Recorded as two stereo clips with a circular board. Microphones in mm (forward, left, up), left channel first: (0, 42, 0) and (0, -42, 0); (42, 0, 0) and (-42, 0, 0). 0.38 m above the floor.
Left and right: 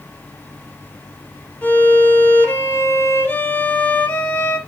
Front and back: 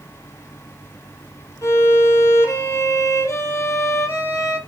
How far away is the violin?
About 0.5 m.